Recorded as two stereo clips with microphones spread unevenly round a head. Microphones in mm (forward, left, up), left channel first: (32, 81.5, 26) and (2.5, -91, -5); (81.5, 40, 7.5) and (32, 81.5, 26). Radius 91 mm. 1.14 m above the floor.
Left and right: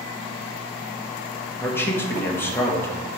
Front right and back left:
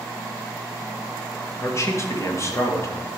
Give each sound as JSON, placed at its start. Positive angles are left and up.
{"t": 1.6, "sound": "a man speaking", "azimuth_deg": 0, "distance_m": 1.8}